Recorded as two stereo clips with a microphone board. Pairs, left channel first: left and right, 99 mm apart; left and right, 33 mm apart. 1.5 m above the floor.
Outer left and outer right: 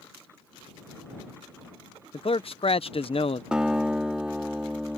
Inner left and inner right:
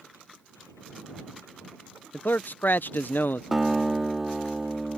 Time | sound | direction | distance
2.1 | a man speaking | 65° left (ahead or behind) | ?
3.5 | a guitar | 10° right (ahead or behind) | ?